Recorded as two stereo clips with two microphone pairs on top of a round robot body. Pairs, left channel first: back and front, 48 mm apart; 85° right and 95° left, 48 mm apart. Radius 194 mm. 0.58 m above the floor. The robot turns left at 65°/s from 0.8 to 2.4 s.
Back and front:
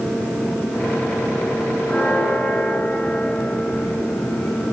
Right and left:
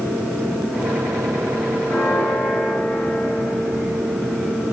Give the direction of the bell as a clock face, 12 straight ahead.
4 o'clock.